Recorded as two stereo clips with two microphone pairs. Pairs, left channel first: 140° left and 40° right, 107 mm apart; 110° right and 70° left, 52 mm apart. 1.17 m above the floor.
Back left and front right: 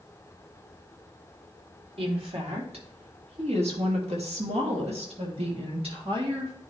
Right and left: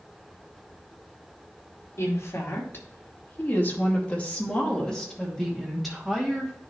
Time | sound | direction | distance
2.0 | a woman speaking | 75° right | 2.5 m